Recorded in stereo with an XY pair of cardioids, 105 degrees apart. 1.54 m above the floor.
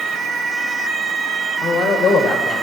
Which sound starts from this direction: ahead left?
A man speaking, at 1.6 s.